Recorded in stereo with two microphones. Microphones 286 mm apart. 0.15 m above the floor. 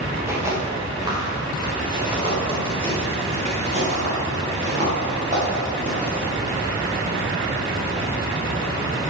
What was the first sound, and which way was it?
Footsteps, 10° right (ahead or behind).